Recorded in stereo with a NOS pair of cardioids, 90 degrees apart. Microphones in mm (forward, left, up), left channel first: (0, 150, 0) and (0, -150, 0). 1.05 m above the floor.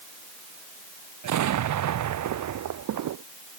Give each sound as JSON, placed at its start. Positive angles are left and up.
{"t": 1.2, "sound": "an explosion", "azimuth_deg": -70}